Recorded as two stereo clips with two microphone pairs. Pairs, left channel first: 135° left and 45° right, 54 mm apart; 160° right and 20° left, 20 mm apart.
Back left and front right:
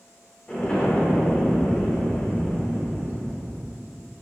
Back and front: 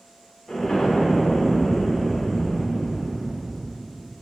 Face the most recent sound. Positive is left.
turn(degrees=-170)